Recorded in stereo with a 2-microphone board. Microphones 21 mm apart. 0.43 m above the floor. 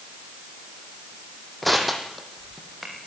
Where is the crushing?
5° left (ahead or behind), 4 m.